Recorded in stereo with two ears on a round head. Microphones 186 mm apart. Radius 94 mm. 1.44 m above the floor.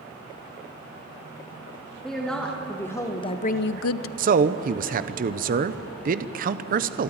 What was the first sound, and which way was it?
A woman speaking, centre (ahead or behind).